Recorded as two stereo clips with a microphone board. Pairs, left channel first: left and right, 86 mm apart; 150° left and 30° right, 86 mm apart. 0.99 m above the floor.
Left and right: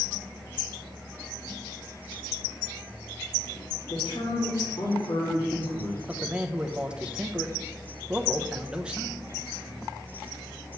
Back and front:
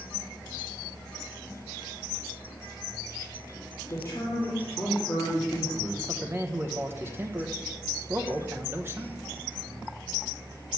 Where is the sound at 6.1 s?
25° right, 0.9 m.